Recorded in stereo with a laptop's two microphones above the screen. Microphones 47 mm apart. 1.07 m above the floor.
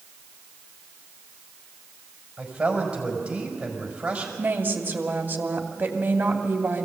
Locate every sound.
2.4 s a man speaking: 20° right (ahead or behind), 5 m
4.4 s a woman speaking: 40° right (ahead or behind), 2.5 m